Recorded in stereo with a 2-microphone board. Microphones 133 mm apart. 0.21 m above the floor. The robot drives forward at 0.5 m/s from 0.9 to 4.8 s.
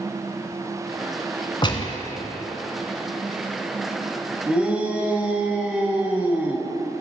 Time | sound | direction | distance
1.6 | a gunshot | 35° left (ahead or behind) | 1.1 m
4.5 | a shout | 10° right (ahead or behind) | 1.4 m